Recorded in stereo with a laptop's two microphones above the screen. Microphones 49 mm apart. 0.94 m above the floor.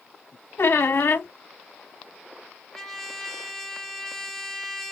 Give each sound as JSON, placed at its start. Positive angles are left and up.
{"t": 0.6, "sound": "a squeak", "side_deg": 55, "distance_m": 0.8}
{"t": 2.7, "sound": "a trumpet", "side_deg": 10, "distance_m": 0.6}